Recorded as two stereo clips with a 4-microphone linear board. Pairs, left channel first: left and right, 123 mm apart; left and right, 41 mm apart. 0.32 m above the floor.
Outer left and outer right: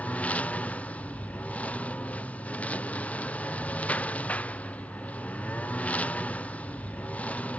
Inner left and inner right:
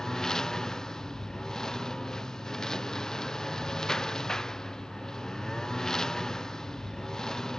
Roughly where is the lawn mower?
Centre.